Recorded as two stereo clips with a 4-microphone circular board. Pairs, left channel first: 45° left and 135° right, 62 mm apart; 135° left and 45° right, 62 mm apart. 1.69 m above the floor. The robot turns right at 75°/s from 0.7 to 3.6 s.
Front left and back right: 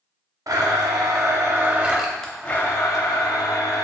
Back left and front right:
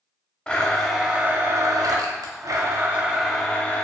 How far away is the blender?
About 0.6 m.